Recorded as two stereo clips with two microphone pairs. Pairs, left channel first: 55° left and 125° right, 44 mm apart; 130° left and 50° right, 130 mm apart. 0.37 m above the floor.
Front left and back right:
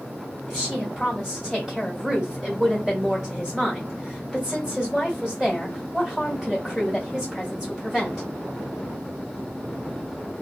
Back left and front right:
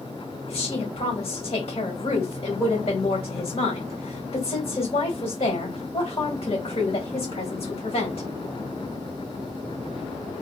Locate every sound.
0.5 s a woman speaking: 145° left, 1.5 m